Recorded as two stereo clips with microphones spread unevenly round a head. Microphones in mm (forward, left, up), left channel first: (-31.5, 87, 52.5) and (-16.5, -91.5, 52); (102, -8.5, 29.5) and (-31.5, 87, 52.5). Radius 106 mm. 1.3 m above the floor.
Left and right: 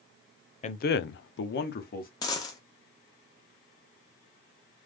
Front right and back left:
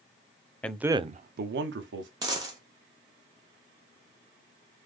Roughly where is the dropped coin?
Behind left.